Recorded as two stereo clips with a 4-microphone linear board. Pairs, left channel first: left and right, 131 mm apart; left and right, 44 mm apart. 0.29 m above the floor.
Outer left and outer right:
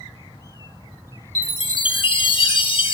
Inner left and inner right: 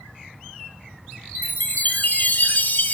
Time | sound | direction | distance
1.4 | a chime | 45° left (ahead or behind) | 0.8 m